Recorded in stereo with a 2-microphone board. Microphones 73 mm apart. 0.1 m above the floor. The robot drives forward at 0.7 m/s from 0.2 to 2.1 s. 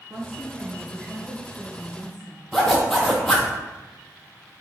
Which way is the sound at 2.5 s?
5° left (ahead or behind).